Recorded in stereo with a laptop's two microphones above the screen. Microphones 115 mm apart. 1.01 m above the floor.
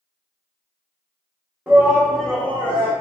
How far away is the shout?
About 0.8 m.